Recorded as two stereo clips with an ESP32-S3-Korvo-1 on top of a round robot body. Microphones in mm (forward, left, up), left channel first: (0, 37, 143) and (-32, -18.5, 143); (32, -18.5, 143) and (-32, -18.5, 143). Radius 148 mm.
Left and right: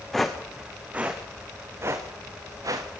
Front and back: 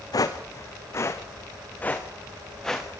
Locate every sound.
0.1 s footsteps: 25° right, 2 m; by 2.9 s 85° right, 3 m